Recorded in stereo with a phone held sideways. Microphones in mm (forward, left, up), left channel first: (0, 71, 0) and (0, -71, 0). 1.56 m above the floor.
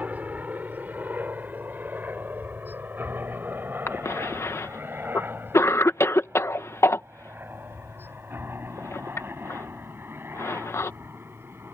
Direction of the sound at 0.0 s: 10° right (ahead or behind).